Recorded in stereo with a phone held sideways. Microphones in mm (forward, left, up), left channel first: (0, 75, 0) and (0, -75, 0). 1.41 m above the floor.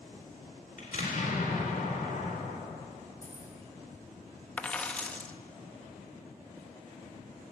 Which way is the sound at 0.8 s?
60° left (ahead or behind).